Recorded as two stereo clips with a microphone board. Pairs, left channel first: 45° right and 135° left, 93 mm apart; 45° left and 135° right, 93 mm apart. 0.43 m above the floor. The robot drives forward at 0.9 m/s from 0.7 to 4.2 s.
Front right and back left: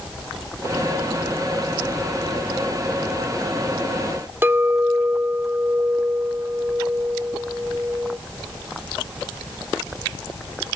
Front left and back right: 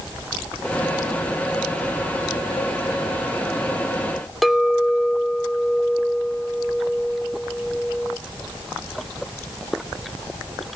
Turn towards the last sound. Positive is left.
turn(degrees=130)